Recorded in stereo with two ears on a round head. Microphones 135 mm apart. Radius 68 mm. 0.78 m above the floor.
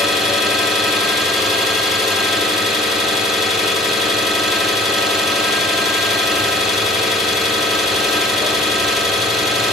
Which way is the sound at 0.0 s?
Centre (ahead or behind).